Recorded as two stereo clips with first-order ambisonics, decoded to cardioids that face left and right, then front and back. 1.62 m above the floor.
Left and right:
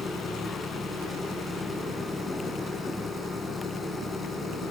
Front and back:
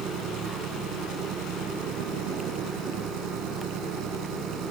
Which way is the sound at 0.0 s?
165° left.